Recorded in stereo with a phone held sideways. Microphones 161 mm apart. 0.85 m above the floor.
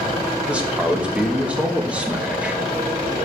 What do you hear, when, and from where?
0.5 s a man speaking: 5° right (ahead or behind), 1.1 m